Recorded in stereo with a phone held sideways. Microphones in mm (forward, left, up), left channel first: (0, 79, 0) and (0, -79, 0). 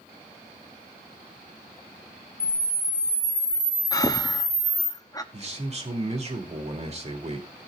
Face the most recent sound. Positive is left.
turn(degrees=-40)  # may be behind; listen again after turning